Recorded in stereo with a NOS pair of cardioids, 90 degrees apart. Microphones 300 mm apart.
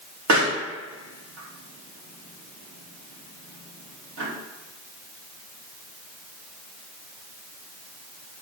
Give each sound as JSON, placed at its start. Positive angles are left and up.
{"t": 0.3, "sound": "a pop", "azimuth_deg": -65, "distance_m": 3.0}